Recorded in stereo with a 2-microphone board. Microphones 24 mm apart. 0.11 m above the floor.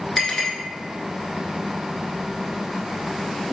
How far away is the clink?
About 1.1 m.